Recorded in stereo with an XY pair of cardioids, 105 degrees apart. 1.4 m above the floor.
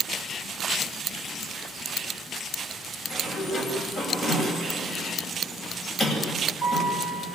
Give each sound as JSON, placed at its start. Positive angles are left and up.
{"t": 3.1, "sound": "a sliding door", "azimuth_deg": 45, "distance_m": 8.5}